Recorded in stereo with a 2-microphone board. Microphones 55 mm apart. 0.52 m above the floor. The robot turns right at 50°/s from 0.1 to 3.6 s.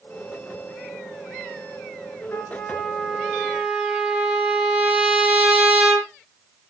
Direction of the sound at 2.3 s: 135° left.